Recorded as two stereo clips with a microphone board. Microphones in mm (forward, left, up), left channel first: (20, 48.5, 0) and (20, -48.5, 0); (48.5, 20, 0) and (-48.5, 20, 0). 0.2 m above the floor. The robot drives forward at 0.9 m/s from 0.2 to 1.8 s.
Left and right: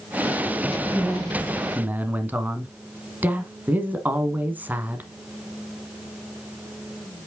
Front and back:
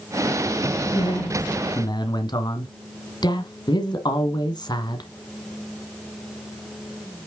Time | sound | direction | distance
0.9 | a man speaking | 15° right | 2.5 m